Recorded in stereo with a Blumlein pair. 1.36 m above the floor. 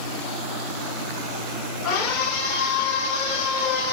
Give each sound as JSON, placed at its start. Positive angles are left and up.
{"t": 1.8, "sound": "a scream", "azimuth_deg": 30, "distance_m": 6.0}